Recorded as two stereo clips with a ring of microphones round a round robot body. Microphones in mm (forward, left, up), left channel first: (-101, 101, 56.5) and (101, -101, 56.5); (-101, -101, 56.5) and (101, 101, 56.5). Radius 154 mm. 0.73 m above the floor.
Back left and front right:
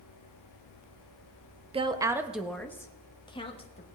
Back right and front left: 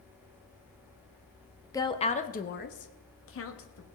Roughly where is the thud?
No thud in this recording.